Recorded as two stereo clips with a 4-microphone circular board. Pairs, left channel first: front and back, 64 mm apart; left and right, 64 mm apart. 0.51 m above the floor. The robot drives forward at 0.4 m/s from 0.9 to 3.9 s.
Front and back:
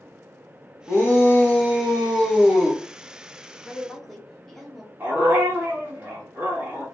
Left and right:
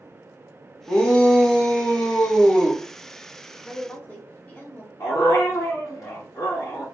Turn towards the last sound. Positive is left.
turn(degrees=120)